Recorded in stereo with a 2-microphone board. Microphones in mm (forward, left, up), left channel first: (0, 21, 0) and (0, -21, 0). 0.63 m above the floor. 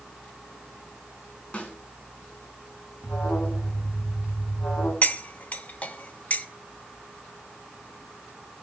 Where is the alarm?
65° left (ahead or behind), 7.5 m.